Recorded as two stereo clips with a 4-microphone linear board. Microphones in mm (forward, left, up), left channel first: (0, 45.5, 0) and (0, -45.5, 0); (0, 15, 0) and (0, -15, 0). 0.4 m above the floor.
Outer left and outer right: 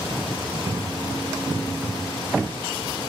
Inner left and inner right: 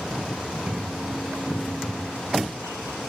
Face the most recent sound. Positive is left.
turn(degrees=-25)  # may be behind; listen again after turning